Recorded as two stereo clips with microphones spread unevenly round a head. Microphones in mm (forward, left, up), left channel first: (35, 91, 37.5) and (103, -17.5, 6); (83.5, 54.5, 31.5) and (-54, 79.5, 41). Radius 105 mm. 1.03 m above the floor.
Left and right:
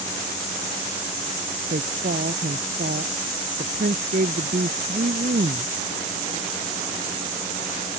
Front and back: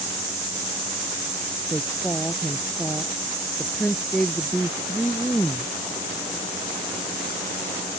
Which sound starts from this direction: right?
A woman speaking, at 1.7 s.